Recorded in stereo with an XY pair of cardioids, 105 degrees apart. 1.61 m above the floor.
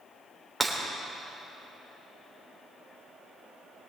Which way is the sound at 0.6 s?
5° right.